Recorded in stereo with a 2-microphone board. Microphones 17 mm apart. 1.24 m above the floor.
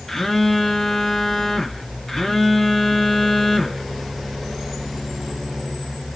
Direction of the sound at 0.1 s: 20° left (ahead or behind).